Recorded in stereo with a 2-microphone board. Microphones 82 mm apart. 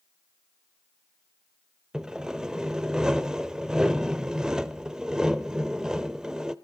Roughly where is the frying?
No frying in this recording.